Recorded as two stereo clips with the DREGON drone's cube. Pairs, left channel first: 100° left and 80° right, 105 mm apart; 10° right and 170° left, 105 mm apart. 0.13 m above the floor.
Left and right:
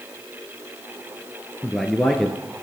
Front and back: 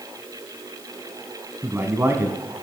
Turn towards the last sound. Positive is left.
turn(degrees=-175)